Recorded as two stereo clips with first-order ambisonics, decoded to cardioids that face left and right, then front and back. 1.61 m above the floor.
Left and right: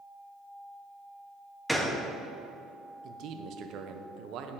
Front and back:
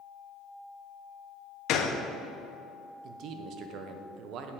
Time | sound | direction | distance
1.7 | a gunshot | 5° left | 0.6 m
3.0 | a man speaking | 135° right | 0.7 m